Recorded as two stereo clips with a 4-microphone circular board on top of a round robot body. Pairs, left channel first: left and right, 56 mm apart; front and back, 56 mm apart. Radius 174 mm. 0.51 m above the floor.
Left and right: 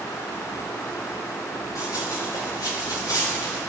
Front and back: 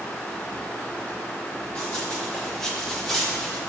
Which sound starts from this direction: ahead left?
Running footsteps, at 1.8 s.